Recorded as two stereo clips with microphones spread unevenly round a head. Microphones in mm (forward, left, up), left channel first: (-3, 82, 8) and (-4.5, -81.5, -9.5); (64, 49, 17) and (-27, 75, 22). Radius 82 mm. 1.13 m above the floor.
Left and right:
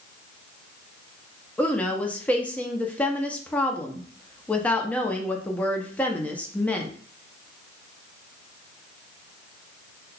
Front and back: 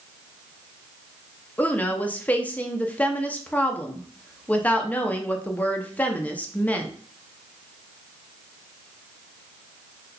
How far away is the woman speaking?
About 0.5 m.